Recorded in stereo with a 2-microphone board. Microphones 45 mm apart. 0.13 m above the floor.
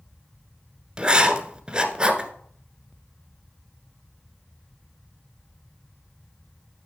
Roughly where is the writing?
Right.